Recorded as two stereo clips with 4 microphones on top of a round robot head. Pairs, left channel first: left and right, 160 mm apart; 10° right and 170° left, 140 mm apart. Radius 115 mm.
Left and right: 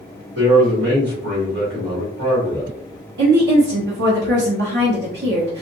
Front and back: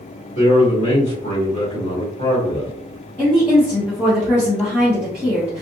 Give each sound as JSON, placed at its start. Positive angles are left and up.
{"t": 0.3, "sound": "a man speaking", "azimuth_deg": -55, "distance_m": 1.9}
{"t": 3.2, "sound": "a woman speaking", "azimuth_deg": -95, "distance_m": 0.9}